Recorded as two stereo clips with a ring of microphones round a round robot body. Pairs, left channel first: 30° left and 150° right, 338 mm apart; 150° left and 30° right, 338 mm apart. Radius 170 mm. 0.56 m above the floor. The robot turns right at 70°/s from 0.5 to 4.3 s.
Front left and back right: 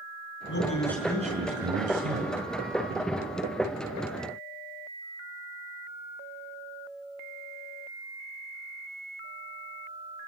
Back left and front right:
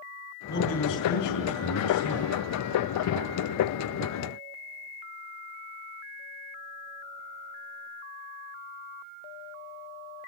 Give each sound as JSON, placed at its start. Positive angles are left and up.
{"t": 0.5, "sound": "a man speaking", "azimuth_deg": 85, "distance_m": 6.0}